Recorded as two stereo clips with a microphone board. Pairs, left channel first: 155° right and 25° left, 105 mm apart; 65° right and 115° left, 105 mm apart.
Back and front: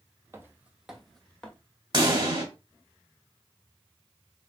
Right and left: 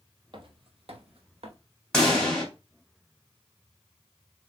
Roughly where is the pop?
Ahead.